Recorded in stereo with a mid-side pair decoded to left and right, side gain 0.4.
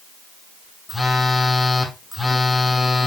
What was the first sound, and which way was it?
A phone buzzing, 25° left.